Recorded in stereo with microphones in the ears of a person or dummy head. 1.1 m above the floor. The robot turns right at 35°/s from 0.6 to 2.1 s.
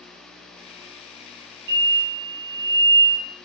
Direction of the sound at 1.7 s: 55° right (ahead or behind).